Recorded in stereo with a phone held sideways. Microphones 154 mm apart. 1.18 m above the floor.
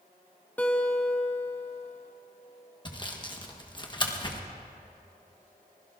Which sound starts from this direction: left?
Sawing, at 2.9 s.